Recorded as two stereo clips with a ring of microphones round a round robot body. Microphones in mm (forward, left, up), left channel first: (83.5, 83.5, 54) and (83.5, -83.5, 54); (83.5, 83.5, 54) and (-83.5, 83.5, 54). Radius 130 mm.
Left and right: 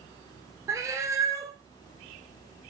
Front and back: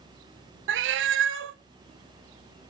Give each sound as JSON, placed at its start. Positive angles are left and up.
{"t": 0.7, "sound": "a cat meowing", "azimuth_deg": -170, "distance_m": 0.6}